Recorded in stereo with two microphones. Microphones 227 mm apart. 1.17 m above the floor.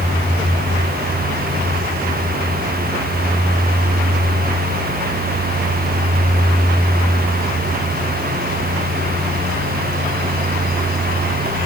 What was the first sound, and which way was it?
Only background noise.